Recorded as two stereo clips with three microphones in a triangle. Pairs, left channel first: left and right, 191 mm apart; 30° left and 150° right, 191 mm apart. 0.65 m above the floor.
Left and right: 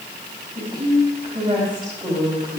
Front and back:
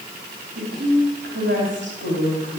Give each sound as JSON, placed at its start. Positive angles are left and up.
{"t": 0.6, "sound": "a woman speaking", "azimuth_deg": -155, "distance_m": 4.5}